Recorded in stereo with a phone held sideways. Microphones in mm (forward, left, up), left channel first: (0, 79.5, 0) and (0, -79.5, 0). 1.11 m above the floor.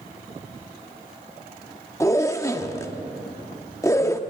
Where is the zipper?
20° left (ahead or behind), 1.1 m.